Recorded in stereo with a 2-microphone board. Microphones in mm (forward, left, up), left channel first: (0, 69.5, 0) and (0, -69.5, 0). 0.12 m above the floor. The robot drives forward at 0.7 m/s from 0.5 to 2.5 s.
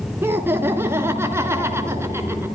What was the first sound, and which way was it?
Laughter, 15° right (ahead or behind).